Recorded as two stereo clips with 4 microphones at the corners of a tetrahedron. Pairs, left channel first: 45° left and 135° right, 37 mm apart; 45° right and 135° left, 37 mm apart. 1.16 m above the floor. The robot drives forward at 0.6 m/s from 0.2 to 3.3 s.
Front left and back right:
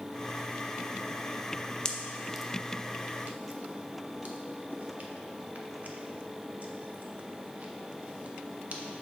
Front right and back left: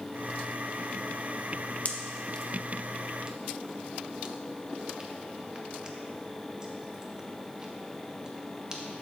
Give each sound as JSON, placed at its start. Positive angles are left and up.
{"t": 1.9, "sound": "a pop", "azimuth_deg": -20, "distance_m": 0.6}